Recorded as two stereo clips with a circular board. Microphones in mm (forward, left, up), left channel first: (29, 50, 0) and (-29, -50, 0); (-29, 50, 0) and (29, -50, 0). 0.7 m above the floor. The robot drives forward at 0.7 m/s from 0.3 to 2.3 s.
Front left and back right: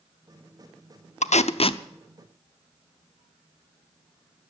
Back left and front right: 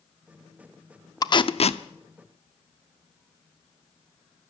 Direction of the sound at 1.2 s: 65° left.